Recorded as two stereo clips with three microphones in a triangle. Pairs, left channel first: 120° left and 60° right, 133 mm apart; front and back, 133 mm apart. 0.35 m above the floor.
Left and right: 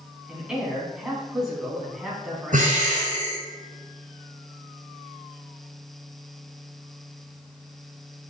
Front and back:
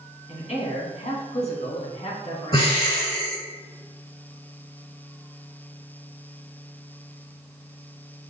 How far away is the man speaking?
About 3 m.